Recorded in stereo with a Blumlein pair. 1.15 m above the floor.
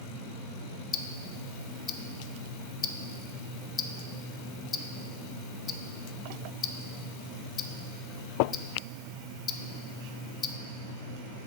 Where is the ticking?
25° left, 0.6 m.